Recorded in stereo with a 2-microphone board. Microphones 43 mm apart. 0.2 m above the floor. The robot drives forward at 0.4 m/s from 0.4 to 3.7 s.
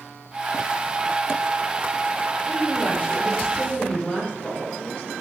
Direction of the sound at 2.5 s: 25° left (ahead or behind).